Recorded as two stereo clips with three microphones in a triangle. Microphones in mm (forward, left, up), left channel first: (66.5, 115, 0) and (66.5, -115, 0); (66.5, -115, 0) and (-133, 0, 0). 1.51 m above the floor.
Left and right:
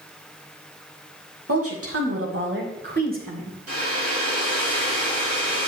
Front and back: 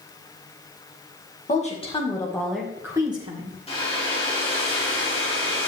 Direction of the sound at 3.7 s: 95° right.